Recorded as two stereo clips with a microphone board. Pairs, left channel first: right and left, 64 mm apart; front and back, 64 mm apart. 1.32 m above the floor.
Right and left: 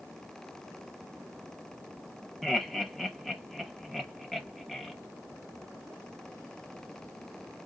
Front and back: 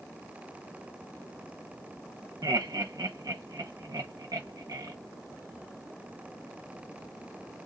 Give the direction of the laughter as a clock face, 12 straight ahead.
6 o'clock.